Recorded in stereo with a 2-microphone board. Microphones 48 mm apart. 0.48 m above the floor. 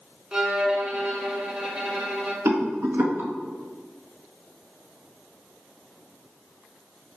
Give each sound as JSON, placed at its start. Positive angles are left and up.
{"t": 0.3, "sound": "a violin", "side_deg": -20, "distance_m": 0.9}
{"t": 2.5, "sound": "a rattle", "side_deg": -70, "distance_m": 1.0}